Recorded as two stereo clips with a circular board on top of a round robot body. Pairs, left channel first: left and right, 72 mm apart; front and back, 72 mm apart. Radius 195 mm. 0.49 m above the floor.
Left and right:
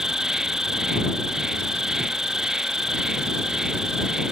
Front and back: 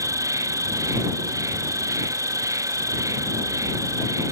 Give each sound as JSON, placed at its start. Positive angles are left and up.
{"t": 0.0, "sound": "an insect", "azimuth_deg": -170}